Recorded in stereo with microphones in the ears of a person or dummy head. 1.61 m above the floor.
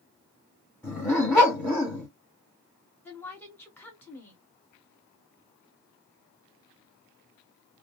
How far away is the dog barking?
About 1.9 m.